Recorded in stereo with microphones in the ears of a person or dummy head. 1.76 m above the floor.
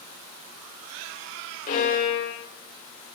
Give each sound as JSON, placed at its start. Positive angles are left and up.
{"t": 1.7, "sound": "a violin", "side_deg": 50, "distance_m": 3.0}